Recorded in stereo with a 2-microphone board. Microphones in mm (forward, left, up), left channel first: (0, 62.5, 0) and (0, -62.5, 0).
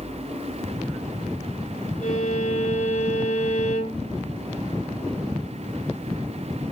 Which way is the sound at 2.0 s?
70° left (ahead or behind).